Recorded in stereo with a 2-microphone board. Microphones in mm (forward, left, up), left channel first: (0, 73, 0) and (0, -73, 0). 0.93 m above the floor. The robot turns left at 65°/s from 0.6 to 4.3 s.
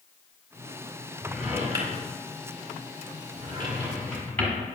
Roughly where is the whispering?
I don't hear whispering.